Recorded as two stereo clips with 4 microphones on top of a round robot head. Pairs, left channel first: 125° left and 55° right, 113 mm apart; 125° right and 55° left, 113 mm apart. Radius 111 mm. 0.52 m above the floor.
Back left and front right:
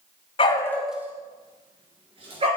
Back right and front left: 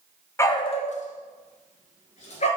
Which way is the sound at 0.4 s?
165° left.